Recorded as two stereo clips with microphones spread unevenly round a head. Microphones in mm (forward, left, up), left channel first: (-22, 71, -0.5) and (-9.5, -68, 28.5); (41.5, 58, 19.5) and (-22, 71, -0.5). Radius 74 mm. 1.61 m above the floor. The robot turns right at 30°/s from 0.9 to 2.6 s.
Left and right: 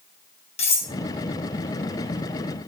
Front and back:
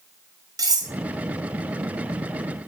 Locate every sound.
0.6 s cutlery clinking: 145° left, 4 m